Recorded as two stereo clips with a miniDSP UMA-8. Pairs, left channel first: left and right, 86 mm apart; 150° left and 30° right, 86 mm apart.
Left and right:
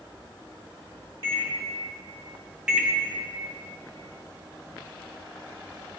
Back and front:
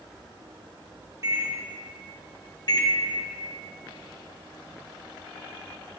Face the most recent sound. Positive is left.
turn(degrees=-170)